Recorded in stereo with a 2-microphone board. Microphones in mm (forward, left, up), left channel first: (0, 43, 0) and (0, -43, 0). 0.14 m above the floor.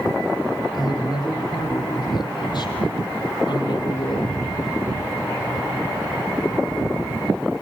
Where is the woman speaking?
50° left (ahead or behind), 7 m; by 4.4 s 60° left (ahead or behind), 3 m.